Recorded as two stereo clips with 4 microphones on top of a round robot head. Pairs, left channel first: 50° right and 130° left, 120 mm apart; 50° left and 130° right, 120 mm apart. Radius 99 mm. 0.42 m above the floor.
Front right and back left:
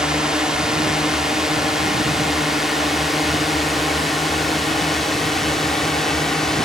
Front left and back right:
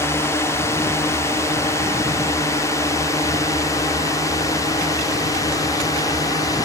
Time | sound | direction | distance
0.0 | a drone | 55° left | ?